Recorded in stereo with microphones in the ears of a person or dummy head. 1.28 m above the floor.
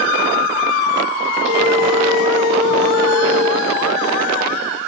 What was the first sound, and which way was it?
A phone ringing, 65° right (ahead or behind).